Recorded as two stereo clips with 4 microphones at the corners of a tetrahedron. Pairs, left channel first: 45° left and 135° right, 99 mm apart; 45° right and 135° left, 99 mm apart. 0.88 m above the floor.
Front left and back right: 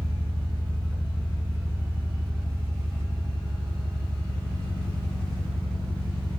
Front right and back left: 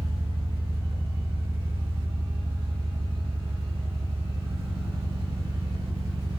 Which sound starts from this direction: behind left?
An engine running, at 0.0 s.